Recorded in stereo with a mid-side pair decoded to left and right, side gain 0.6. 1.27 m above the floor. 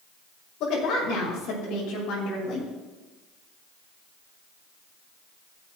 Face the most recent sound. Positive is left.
turn(degrees=60)